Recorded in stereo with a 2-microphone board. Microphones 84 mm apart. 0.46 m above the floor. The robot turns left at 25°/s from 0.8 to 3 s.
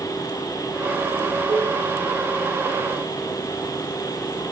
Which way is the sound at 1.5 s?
65° right (ahead or behind).